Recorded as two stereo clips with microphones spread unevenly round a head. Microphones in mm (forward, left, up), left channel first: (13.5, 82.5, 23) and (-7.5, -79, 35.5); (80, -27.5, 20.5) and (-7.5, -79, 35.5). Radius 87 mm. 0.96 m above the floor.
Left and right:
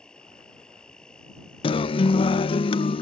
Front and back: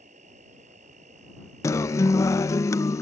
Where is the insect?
170° left.